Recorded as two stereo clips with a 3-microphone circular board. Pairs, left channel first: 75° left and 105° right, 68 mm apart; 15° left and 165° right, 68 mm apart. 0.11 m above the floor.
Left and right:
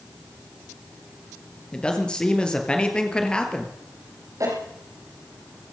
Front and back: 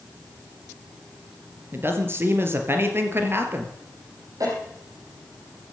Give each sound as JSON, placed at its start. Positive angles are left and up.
{"t": 1.7, "sound": "a man speaking", "azimuth_deg": 150, "distance_m": 2.5}
{"t": 4.4, "sound": "a cough", "azimuth_deg": -135, "distance_m": 5.5}